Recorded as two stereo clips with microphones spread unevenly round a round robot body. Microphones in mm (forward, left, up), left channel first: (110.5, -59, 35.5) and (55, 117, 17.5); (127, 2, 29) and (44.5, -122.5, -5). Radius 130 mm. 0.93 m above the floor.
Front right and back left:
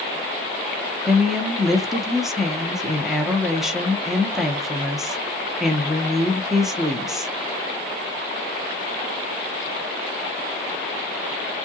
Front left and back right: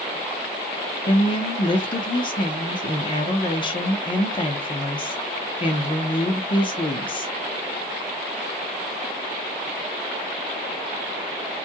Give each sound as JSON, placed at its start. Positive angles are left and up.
{"t": 1.1, "sound": "a woman speaking", "azimuth_deg": 40, "distance_m": 0.7}